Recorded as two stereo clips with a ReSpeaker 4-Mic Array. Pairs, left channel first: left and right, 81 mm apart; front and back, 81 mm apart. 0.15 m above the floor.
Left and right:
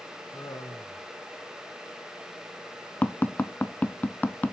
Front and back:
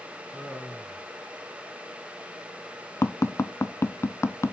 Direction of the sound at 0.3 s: 80° left.